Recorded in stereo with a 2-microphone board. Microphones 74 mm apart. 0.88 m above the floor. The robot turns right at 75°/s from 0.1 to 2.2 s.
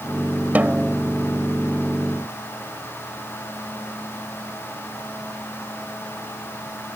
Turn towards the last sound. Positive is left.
turn(degrees=90)